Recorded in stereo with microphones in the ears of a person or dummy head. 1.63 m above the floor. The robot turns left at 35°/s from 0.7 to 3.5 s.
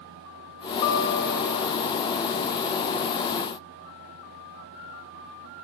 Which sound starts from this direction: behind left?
A guitar, at 0.8 s.